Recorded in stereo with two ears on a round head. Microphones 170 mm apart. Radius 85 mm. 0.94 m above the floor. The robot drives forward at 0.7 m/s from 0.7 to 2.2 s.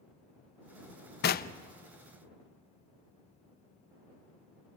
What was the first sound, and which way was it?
Knocking, 55° left (ahead or behind).